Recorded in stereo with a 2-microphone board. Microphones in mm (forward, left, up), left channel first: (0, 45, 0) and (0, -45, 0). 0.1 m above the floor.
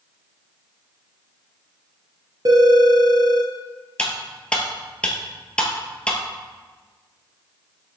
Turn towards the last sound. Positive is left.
turn(degrees=15)  # may be behind; listen again after turning